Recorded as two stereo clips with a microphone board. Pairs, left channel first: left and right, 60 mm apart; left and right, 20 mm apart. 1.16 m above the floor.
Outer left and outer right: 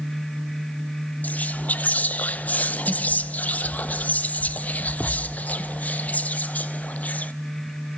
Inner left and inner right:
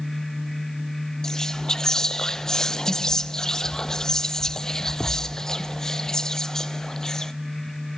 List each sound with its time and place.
1.2 s whispering: 25° left (ahead or behind), 0.7 m